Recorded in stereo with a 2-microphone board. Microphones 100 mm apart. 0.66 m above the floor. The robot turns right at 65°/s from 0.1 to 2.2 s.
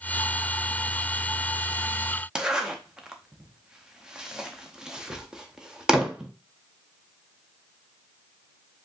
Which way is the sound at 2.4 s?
5° right (ahead or behind).